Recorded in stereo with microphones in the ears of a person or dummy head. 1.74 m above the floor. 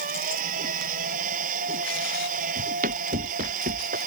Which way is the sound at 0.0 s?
50° right (ahead or behind).